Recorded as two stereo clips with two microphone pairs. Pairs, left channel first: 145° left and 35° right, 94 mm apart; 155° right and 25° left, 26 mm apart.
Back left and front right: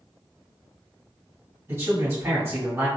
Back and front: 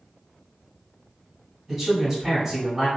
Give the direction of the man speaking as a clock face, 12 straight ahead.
1 o'clock.